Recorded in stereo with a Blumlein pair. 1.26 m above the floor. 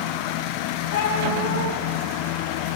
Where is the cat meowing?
55° left, 5 m.